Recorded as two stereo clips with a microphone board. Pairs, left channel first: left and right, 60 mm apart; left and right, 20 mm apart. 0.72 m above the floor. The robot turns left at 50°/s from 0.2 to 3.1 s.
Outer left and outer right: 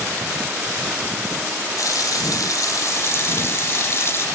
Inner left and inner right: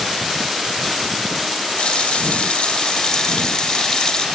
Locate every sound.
1.8 s a running tap: 115° left, 1.8 m; by 4.3 s 45° left, 1.8 m